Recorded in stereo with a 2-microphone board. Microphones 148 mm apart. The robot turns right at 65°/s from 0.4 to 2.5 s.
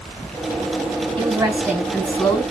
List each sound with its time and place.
1.2 s a woman speaking: 50° right, 3 m; by 2.4 s 35° left, 3 m